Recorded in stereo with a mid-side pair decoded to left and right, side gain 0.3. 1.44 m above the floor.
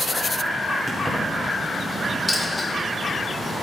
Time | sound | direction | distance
0.9 | keys jangling | 15° right | 3 m
2.3 | a dropped coin | 15° left | 2.5 m